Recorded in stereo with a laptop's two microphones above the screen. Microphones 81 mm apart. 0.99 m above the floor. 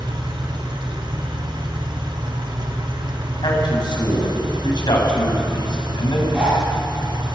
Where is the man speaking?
65° left (ahead or behind), 7 m.